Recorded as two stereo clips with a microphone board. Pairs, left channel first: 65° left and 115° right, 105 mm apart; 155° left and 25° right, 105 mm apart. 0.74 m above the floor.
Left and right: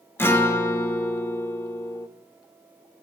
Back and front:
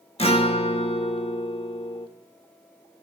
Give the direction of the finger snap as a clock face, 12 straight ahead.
No finger snap in this recording.